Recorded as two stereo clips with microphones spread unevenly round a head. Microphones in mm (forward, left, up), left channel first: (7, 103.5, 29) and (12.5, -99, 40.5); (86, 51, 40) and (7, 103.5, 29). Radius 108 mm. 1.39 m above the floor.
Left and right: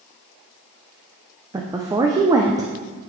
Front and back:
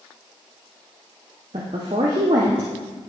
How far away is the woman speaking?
About 0.6 m.